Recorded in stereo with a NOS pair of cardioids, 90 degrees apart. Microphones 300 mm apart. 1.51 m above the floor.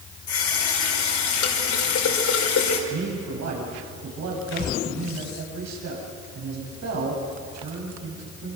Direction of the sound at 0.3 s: 65° left.